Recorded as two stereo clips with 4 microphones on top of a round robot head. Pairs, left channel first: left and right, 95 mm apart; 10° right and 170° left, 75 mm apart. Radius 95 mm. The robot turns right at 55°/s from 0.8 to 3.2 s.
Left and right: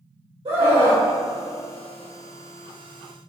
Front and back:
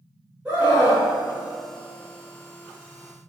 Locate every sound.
0.5 s a scream: 115° right, 2.5 m; by 1.1 s 95° right, 2.5 m